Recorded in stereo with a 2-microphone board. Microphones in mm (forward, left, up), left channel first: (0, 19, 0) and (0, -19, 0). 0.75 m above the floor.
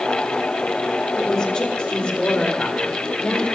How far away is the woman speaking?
About 2.5 m.